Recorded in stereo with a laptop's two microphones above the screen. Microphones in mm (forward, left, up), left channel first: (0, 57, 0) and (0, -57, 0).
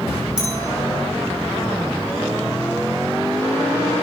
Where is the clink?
5° right (ahead or behind), 7.5 m.